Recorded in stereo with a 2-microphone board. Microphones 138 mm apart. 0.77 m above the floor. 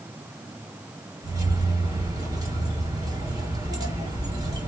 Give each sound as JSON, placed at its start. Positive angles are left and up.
{"t": 1.2, "sound": "keys jangling", "side_deg": -25, "distance_m": 1.5}